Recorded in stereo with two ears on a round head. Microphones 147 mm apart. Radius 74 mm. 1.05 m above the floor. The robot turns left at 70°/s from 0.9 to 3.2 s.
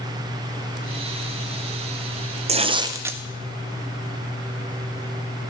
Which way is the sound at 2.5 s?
120° right.